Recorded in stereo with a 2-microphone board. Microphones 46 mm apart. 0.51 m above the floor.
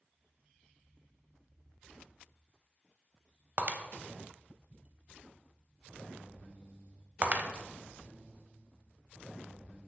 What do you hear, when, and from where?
3.6 s breaking glass: 35° right (ahead or behind), 0.6 m